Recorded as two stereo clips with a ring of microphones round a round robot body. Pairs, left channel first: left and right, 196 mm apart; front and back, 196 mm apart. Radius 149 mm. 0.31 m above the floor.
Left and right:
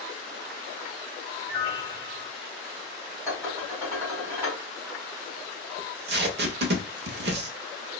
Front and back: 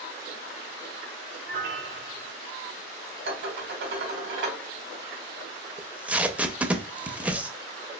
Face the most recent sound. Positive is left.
turn(degrees=-95)